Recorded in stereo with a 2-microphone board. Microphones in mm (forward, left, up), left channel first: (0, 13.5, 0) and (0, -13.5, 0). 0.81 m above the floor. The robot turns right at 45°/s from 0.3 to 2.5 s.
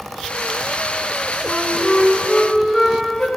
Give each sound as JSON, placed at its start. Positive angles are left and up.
{"t": 1.4, "sound": "a flute", "azimuth_deg": -10, "distance_m": 1.6}